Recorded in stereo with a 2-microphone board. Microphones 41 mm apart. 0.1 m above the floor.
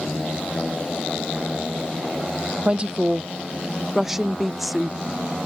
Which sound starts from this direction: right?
A woman speaking, at 2.6 s.